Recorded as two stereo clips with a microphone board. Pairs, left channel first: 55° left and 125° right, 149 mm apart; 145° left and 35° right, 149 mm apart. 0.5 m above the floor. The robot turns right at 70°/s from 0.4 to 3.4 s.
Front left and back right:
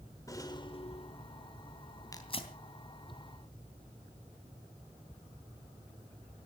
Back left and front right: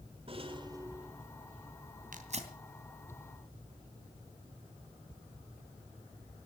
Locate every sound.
0.3 s a rattle: 5° right, 1.8 m; by 1.5 s 75° left, 1.8 m
2.1 s tearing paper: 10° right, 2.5 m; by 2.5 s 15° left, 2.5 m